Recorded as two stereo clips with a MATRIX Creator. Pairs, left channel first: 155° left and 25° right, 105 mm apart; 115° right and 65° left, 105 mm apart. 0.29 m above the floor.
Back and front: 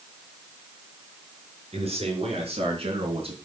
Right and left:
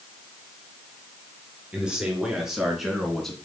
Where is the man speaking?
15° right, 4.5 m; by 3.4 s 25° right, 3.5 m.